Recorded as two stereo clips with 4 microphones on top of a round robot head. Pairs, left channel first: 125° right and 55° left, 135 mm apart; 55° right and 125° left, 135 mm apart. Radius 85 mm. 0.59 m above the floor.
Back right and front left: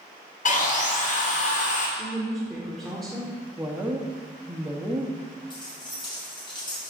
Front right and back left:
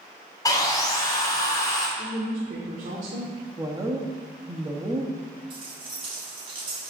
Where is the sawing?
115° right, 1.9 m.